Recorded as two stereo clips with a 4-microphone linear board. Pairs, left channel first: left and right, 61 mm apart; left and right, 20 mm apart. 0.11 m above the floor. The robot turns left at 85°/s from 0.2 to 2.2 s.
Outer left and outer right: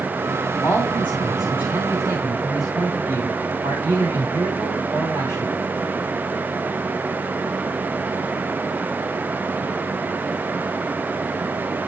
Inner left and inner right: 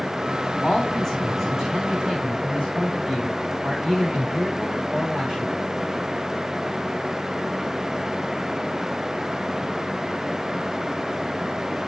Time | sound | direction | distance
0.6 | a man speaking | 55° left | 7.5 m